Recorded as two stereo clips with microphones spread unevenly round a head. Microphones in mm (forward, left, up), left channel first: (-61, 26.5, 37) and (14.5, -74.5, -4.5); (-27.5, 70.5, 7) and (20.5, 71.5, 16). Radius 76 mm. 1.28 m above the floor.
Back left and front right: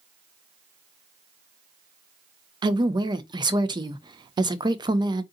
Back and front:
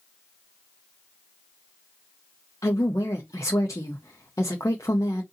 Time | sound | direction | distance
2.6 | a woman speaking | 115° right | 0.5 m